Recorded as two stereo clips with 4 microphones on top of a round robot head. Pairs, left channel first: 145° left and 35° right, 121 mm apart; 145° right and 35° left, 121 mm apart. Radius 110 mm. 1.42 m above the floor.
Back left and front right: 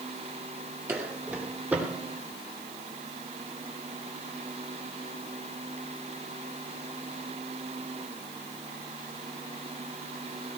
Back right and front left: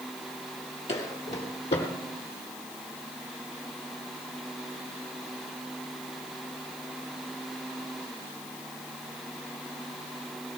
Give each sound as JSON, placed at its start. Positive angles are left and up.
{"t": 0.9, "sound": "footsteps", "azimuth_deg": -105, "distance_m": 2.5}